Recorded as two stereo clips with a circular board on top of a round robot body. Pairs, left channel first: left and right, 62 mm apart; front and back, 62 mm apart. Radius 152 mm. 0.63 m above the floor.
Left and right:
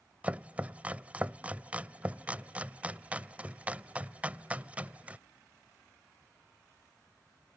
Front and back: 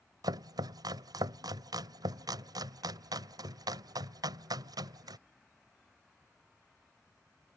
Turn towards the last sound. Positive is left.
turn(degrees=-160)